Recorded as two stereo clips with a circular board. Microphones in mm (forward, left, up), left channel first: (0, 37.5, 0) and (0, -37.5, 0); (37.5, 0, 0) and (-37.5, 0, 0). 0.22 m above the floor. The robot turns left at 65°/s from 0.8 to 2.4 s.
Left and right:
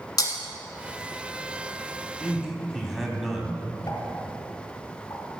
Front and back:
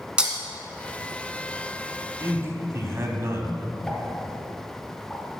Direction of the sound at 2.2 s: 160° right.